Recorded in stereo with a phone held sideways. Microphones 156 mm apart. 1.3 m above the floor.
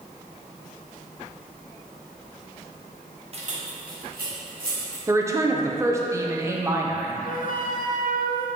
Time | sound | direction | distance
3.3 | keys jangling | 40° right (ahead or behind) | 0.9 m
5.1 | a woman speaking | 20° right (ahead or behind) | 0.7 m
7.2 | a flute | 65° left (ahead or behind) | 0.6 m